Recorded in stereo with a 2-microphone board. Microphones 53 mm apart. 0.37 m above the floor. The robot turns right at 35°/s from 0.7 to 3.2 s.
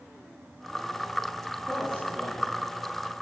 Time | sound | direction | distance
1.7 | a man speaking | 35° right (ahead or behind) | 5 m